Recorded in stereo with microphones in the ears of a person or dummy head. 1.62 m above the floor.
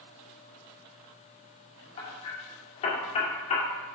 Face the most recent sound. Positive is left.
turn(degrees=30)  # may be behind; listen again after turning